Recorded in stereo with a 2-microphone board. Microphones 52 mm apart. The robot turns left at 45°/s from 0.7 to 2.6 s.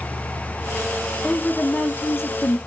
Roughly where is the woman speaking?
Behind.